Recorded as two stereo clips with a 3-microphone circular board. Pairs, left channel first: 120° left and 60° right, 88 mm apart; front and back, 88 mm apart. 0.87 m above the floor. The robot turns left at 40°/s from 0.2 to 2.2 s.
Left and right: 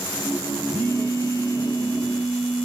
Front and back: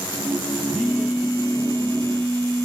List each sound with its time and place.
0.7 s a phone buzzing: 95° right, 1.3 m; by 2.7 s 155° right, 1.3 m